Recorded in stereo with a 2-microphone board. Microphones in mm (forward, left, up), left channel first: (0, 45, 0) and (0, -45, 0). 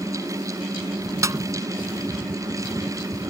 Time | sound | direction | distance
1.2 | a snare drum | 40° right (ahead or behind) | ?